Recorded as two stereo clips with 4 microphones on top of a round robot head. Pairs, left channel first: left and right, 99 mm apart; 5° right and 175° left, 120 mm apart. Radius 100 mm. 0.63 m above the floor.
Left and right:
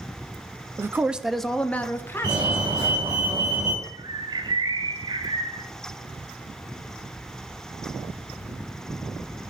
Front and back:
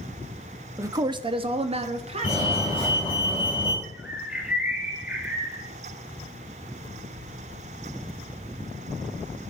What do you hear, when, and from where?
0.8 s a man speaking: 135° right, 0.6 m; by 3.1 s 145° left, 1.6 m
2.2 s a fire alarm: 50° right, 5 m
3.8 s a bird: 105° right, 1.2 m